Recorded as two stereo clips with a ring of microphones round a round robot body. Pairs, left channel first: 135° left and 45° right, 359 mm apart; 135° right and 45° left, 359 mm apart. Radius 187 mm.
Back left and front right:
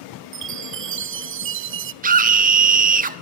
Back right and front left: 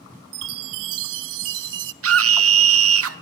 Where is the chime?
10° left, 0.7 m.